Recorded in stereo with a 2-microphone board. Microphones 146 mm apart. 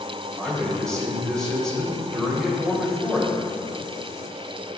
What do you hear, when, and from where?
0.4 s a man speaking: 5° left (ahead or behind), 2.5 m